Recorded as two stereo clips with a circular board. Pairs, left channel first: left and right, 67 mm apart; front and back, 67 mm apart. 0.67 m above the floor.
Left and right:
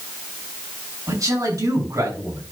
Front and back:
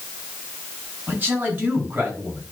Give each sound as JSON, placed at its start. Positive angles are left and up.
{"t": 1.1, "sound": "a man speaking", "azimuth_deg": -120, "distance_m": 7.5}